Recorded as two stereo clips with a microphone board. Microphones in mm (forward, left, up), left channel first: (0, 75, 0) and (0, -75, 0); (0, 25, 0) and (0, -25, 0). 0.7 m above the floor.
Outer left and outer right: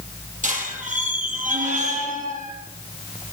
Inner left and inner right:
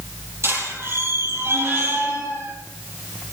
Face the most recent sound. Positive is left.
turn(degrees=-55)  # may be behind; listen again after turning